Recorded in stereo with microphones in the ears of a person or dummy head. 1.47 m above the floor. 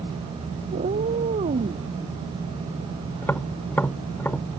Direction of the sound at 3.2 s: 10° left (ahead or behind).